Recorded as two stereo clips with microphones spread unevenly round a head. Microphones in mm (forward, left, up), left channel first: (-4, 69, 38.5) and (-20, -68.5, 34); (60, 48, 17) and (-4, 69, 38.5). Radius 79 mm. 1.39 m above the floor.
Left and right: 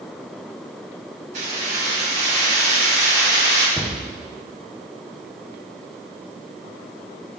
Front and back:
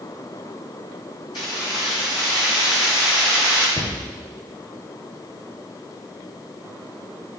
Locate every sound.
1.3 s keys jangling: 60° right, 2.5 m; by 3.7 s 80° right, 3.5 m
3.8 s a cupboard door: 10° right, 0.7 m